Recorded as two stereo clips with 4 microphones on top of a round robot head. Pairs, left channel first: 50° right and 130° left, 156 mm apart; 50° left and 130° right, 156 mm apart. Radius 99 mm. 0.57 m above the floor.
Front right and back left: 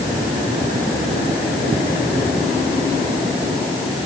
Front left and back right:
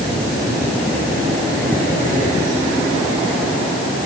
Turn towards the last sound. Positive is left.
No sound to turn to.